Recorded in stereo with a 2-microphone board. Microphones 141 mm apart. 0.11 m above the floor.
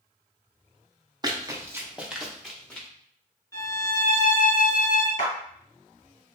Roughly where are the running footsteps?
Right.